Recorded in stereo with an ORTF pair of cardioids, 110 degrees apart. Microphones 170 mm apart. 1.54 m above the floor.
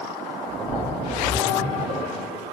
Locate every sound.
0.5 s a splash: 40° right, 3.5 m